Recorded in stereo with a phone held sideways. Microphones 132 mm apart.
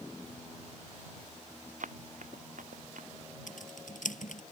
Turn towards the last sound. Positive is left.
turn(degrees=80)